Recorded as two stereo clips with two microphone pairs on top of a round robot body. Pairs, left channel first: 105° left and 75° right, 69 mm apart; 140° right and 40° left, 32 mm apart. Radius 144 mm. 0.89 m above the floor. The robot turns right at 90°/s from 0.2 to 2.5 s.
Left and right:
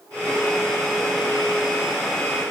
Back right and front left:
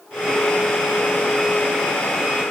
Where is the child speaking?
No child speaking in this recording.